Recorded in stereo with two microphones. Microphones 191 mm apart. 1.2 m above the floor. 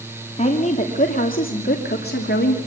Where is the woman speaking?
35° left (ahead or behind), 2.5 m; by 2.6 s 65° left (ahead or behind), 3 m.